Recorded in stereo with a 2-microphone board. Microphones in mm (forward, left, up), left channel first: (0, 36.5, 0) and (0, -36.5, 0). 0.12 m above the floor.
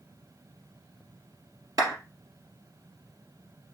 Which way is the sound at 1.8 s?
50° right (ahead or behind).